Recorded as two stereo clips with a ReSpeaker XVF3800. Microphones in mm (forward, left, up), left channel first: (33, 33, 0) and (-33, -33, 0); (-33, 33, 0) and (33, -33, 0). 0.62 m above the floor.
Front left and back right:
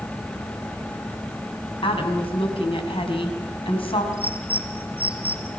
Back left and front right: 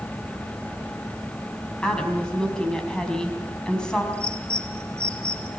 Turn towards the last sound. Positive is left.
turn(degrees=-145)